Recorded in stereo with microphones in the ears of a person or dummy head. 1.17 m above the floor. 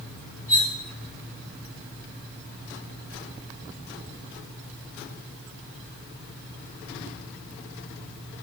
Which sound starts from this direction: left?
Cutlery clinking, at 0.5 s.